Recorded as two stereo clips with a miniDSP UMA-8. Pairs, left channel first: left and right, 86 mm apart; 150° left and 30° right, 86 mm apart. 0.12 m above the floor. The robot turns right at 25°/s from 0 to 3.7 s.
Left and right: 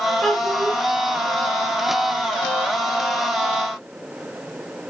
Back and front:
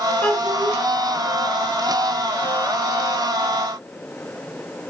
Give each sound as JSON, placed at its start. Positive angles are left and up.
{"t": 0.2, "sound": "a child speaking", "azimuth_deg": 160, "distance_m": 1.1}